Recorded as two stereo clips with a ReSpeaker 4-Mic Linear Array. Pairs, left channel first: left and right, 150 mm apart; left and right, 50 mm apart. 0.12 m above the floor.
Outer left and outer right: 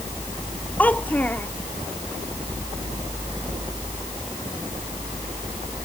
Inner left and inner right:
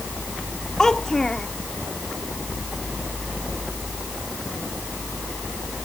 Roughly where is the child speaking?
Centre.